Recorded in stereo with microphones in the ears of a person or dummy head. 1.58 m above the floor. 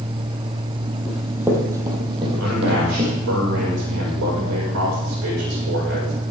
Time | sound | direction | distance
1.1 | running footsteps | 5° right (ahead or behind) | 3 m
2.4 | a man speaking | 70° right (ahead or behind) | 6.5 m